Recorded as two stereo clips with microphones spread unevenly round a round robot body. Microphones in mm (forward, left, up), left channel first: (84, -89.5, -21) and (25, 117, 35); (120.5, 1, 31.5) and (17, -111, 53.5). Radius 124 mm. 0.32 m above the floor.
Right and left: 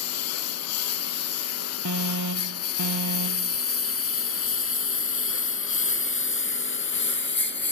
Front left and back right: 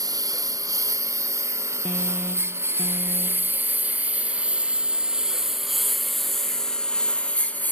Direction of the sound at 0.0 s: 65° right.